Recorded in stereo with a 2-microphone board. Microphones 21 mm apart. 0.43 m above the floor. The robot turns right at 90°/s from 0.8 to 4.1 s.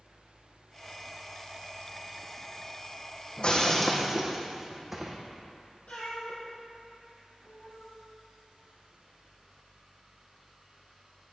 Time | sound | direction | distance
3.4 | breaking glass | 130° left | 1.3 m
5.9 | a cat meowing | 55° left (ahead or behind) | 3 m